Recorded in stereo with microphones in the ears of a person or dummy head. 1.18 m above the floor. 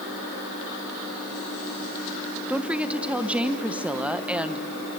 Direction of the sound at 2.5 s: 5° right (ahead or behind).